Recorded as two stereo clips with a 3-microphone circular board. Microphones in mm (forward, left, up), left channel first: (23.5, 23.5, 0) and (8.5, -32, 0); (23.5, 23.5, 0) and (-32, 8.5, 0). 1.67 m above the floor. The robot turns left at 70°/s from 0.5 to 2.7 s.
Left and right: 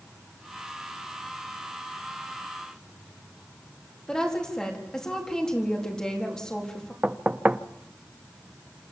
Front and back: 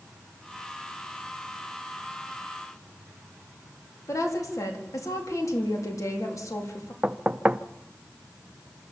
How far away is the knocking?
About 0.7 m.